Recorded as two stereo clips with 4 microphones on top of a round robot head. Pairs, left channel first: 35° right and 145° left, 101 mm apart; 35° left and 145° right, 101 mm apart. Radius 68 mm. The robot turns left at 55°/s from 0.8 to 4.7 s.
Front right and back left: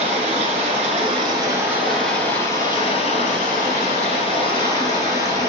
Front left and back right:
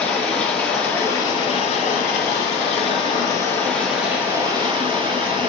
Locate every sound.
0.0 s running water: 120° left, 1.9 m; by 5.5 s 95° right, 1.9 m